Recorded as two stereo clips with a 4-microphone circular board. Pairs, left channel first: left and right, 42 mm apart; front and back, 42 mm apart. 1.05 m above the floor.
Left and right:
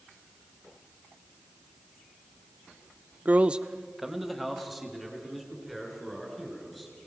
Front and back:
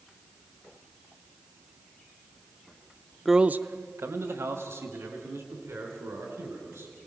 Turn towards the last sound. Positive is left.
turn(degrees=175)